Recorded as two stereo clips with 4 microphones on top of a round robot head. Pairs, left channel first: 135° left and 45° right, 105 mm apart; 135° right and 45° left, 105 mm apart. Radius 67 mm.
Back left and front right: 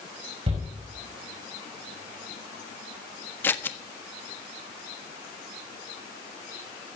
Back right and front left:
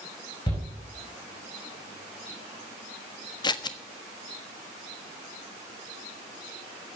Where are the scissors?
165° right, 1.3 m.